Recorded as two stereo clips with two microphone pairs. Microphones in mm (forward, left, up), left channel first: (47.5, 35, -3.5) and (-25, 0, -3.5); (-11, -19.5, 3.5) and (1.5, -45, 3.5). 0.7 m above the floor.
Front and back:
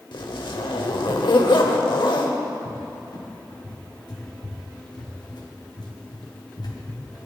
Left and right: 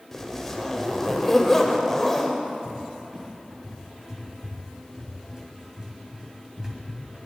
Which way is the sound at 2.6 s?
10° left.